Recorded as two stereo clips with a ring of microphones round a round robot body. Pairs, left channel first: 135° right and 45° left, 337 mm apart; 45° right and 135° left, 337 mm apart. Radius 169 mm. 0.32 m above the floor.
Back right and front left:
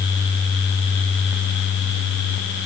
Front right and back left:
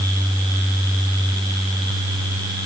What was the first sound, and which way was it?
Only background noise.